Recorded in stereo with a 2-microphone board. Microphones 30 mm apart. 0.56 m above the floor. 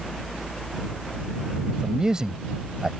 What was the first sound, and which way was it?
A man speaking, 20° right (ahead or behind).